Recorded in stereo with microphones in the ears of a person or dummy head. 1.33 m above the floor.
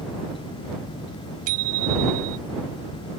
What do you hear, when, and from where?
1.5 s a bicycle bell: 50° right (ahead or behind)